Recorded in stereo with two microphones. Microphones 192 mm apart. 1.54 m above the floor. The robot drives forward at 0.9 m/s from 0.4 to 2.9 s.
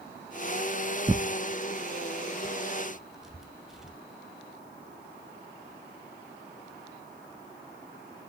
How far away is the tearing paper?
About 0.6 m.